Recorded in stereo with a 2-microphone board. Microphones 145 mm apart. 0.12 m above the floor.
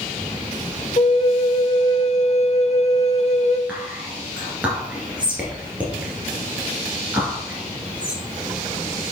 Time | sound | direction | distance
1.0 | a flute | 50° left (ahead or behind) | 0.7 m
3.7 | whispering | 10° right (ahead or behind) | 2 m